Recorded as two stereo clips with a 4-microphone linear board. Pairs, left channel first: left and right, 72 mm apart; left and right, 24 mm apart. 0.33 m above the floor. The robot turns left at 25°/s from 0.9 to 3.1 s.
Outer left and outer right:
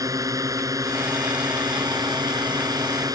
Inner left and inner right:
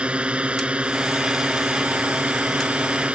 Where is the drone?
60° right; by 3.2 s 115° right.